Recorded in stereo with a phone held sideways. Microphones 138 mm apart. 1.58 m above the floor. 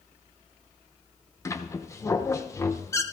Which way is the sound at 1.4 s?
20° left (ahead or behind).